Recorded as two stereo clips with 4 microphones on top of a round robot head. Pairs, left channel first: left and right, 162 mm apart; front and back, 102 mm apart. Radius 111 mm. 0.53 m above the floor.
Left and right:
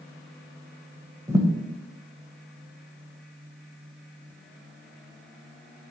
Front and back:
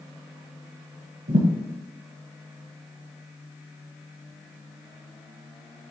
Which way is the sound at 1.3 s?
165° right.